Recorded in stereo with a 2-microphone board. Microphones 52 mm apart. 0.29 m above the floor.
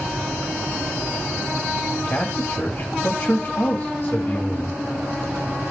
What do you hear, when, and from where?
2.0 s a man speaking: 30° left (ahead or behind), 1.6 m